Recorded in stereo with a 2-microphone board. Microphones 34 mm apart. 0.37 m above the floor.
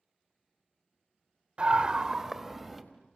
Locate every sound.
1.6 s a scream: 35° right (ahead or behind), 1.3 m; by 2.8 s centre (ahead or behind), 2 m